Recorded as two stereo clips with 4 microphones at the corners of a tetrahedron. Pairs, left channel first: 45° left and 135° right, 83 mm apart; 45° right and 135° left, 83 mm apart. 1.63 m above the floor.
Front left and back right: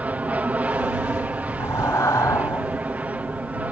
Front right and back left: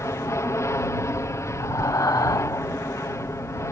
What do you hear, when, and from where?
0.0 s an aircraft: 70° right
1.6 s breathing: straight ahead